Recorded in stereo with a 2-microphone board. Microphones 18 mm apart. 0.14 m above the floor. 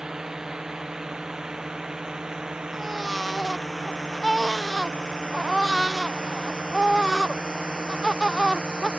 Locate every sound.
0.0 s a drone: 40° right (ahead or behind); by 9.0 s 65° right (ahead or behind)
2.7 s a baby crying: centre (ahead or behind)